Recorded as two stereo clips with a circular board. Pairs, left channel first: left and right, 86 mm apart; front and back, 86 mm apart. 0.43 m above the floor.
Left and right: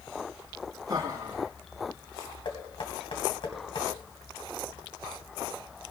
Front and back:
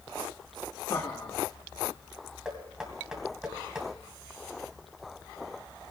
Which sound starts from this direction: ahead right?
Laughter, at 0.9 s.